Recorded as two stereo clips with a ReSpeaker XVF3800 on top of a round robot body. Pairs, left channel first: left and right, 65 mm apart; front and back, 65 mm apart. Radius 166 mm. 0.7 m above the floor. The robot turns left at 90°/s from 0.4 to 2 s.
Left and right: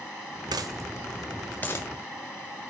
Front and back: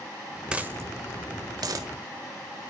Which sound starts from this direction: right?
A dropped coin, at 0.5 s.